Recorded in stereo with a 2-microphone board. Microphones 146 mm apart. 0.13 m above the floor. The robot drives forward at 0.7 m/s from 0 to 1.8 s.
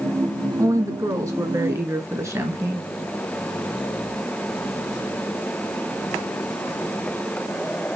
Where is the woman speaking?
25° right (ahead or behind), 1.3 m; by 2.8 s 20° right (ahead or behind), 1.5 m.